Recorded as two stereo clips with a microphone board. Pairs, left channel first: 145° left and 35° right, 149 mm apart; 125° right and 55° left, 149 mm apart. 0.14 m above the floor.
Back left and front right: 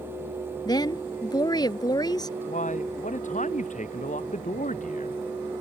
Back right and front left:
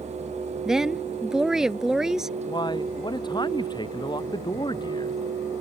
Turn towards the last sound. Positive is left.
turn(degrees=175)